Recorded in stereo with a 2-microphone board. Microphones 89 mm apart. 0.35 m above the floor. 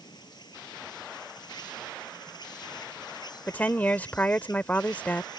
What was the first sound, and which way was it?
An insect, 50° left (ahead or behind).